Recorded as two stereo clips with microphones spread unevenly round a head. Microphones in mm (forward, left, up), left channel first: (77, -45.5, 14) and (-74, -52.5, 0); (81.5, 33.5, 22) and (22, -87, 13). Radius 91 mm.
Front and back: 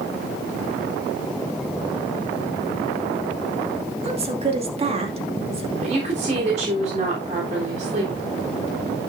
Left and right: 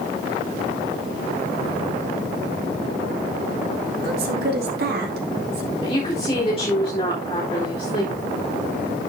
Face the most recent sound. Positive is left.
turn(degrees=125)